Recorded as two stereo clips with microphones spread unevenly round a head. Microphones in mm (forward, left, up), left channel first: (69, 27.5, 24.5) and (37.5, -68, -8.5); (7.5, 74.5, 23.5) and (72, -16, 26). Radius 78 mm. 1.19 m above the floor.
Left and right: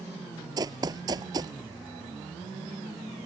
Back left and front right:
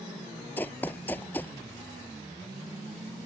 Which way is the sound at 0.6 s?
170° right.